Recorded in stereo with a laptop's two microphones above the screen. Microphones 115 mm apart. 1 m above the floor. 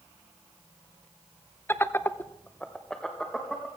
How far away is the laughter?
About 0.7 m.